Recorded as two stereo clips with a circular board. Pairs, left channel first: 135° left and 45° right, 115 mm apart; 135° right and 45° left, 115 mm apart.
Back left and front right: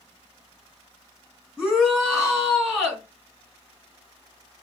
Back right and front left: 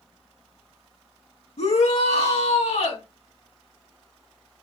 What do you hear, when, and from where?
1.6 s a shout: 130° right, 4.5 m